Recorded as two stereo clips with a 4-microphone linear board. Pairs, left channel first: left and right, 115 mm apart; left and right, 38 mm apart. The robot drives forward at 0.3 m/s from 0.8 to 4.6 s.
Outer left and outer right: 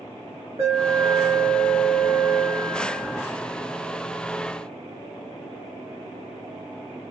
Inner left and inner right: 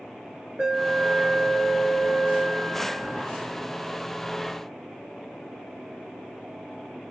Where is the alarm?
55° right (ahead or behind), 5 m; by 3.2 s 60° right (ahead or behind), 4.5 m.